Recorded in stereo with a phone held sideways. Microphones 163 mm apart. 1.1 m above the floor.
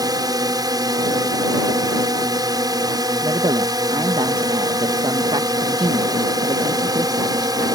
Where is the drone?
25° right (ahead or behind).